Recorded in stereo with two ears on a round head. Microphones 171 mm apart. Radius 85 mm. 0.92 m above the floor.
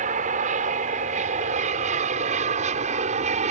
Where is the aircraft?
40° right (ahead or behind).